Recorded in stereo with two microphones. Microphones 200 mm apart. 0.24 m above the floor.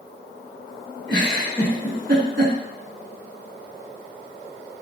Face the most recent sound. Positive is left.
turn(degrees=-20)  # may be behind; listen again after turning